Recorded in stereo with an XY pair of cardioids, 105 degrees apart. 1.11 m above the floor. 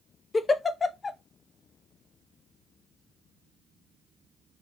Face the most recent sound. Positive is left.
turn(degrees=30)